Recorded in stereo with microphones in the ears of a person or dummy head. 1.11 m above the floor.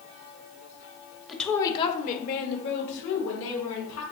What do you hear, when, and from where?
1.3 s a woman speaking: centre (ahead or behind), 0.8 m; by 4.0 s 85° left, 2.5 m